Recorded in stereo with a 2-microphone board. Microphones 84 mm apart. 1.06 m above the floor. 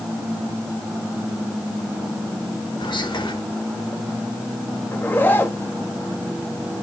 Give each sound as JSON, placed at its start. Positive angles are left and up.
{"t": 2.8, "sound": "whispering", "side_deg": 85, "distance_m": 2.5}
{"t": 4.9, "sound": "a zipper", "side_deg": 25, "distance_m": 1.1}